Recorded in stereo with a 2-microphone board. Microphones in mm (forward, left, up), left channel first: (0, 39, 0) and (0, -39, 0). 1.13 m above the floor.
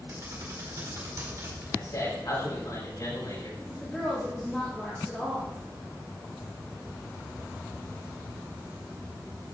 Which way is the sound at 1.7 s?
55° left (ahead or behind).